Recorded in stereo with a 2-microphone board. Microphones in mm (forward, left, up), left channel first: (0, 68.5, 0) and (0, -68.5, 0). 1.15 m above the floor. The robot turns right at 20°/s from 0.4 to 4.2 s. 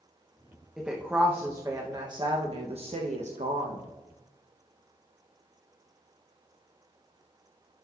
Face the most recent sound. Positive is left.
turn(degrees=-105)